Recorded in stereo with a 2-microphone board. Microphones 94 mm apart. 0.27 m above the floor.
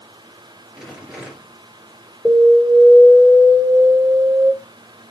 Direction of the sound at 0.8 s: 5° right (ahead or behind).